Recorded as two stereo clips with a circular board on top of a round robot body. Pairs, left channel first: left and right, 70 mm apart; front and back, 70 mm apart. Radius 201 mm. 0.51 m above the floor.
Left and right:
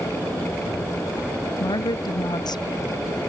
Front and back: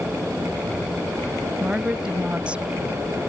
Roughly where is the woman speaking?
Left.